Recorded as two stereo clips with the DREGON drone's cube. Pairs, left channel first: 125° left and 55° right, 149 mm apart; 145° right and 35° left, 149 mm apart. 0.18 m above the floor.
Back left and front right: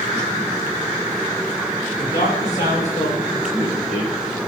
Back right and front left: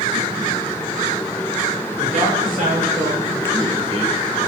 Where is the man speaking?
85° left, 4.5 m; by 4.1 s 90° left, 5.5 m.